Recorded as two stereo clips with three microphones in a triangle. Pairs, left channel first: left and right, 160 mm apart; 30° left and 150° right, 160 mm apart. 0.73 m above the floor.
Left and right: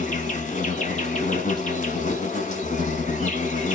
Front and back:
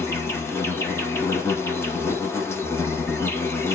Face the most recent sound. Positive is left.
turn(degrees=100)